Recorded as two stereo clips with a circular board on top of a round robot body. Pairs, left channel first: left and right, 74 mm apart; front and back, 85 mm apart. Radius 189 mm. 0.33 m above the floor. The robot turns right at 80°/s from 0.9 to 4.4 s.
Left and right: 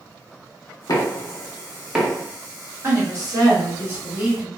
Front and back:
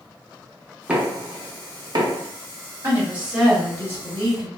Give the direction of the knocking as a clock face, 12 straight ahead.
9 o'clock.